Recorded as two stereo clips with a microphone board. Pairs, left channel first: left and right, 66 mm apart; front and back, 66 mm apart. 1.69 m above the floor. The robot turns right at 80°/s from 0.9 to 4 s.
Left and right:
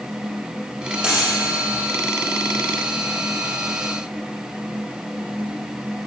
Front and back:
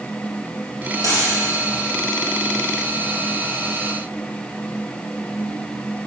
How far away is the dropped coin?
About 3 m.